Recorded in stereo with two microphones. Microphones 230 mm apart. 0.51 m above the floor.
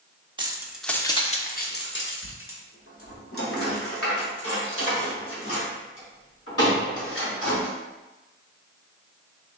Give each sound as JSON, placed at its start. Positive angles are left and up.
{"t": 0.4, "sound": "keys jangling", "side_deg": -20, "distance_m": 0.6}